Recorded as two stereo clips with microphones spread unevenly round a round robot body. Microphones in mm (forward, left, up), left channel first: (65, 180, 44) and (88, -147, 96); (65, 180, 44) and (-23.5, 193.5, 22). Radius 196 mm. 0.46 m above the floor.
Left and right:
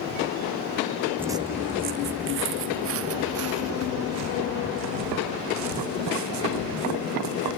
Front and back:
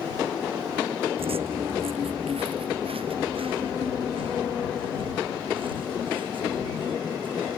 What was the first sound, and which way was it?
Footsteps, 170° right.